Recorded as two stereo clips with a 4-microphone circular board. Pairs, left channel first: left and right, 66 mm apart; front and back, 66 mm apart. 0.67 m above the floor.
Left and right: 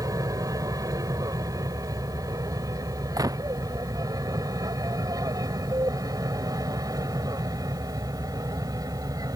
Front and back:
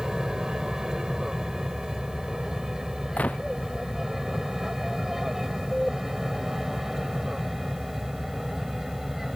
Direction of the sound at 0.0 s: 100° right.